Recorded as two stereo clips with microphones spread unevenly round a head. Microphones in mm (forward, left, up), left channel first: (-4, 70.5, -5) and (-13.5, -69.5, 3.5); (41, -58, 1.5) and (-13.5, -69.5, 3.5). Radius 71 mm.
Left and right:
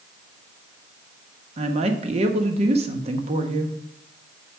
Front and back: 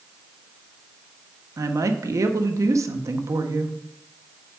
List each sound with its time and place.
1.6 s a woman speaking: 140° right, 0.9 m